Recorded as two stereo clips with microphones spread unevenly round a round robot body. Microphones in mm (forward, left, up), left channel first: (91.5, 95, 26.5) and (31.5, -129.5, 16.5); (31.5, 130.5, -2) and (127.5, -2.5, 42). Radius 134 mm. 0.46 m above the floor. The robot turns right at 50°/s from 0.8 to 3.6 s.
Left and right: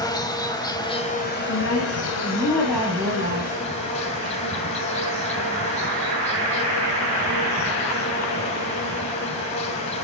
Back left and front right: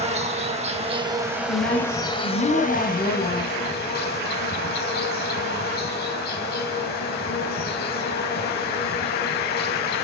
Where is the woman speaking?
105° left, 3.5 m; by 4.4 s 150° right, 3.5 m.